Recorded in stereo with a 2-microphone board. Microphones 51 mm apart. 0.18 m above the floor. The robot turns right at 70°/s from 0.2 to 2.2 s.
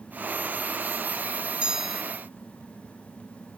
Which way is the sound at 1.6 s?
20° right (ahead or behind).